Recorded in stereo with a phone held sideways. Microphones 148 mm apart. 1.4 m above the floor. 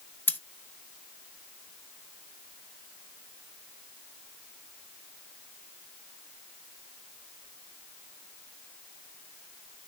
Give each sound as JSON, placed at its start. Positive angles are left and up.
{"t": 0.3, "sound": "scissors", "side_deg": 15, "distance_m": 0.6}